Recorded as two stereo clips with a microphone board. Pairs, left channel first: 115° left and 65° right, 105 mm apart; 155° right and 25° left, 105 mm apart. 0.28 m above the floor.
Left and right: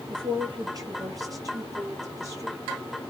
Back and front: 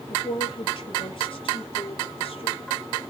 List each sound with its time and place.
0.1 s a woman speaking: 115° right, 4.5 m; by 2.6 s 130° right, 6.5 m